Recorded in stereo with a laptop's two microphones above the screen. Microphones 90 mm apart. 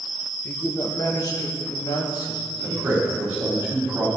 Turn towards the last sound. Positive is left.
turn(degrees=-25)  # may be behind; listen again after turning